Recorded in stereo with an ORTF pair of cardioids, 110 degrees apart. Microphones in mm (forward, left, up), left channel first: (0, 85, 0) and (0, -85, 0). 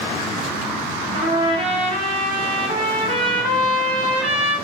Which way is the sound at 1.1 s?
30° right.